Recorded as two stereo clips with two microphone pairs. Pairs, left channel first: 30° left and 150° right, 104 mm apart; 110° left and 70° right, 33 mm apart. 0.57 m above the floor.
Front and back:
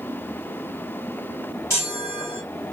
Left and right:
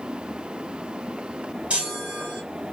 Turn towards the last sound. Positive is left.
turn(degrees=-30)